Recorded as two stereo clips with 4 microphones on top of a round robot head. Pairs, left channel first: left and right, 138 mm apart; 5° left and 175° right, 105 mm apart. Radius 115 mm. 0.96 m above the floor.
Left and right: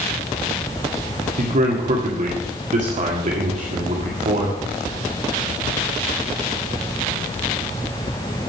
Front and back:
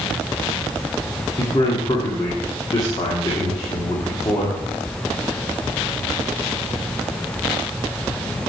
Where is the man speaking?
60° right, 1.9 m.